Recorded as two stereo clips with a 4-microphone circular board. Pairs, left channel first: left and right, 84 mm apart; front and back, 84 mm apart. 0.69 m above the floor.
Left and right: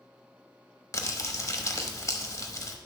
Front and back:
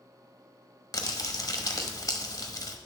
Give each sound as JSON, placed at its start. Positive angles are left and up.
{"t": 0.9, "sound": "crumpling", "azimuth_deg": 40, "distance_m": 1.0}